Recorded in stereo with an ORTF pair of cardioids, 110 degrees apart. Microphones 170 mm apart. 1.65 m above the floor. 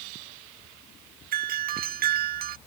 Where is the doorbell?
60° right.